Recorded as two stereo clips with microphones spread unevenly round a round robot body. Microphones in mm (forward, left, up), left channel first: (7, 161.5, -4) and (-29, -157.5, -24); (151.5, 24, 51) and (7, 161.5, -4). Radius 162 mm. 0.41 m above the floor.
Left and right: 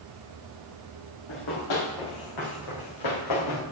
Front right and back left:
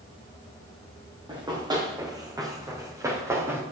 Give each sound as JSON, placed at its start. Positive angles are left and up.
{"t": 1.3, "sound": "running footsteps", "azimuth_deg": 65, "distance_m": 5.0}